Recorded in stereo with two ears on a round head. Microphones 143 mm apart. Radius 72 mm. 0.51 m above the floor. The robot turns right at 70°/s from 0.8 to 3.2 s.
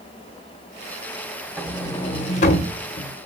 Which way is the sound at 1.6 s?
Centre (ahead or behind).